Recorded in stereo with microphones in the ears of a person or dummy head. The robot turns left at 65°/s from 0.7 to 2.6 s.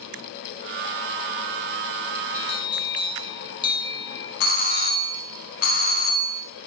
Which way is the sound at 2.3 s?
45° left (ahead or behind).